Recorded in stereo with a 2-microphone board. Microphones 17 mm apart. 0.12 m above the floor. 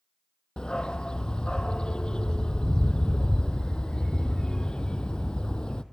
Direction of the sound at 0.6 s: 75° left (ahead or behind).